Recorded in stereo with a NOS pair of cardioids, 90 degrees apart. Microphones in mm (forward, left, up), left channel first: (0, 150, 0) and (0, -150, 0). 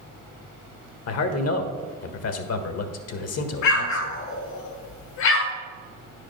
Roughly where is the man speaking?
Ahead left.